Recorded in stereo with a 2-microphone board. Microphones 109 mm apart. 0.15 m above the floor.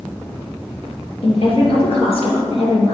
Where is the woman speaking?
60° left (ahead or behind), 3 m.